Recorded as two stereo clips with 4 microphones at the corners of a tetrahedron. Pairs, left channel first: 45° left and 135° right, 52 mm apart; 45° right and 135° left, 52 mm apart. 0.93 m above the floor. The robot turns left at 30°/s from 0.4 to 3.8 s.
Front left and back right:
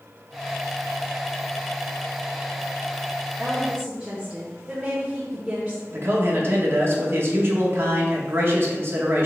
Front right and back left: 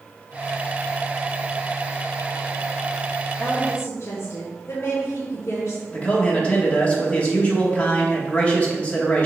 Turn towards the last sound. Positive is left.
turn(degrees=-105)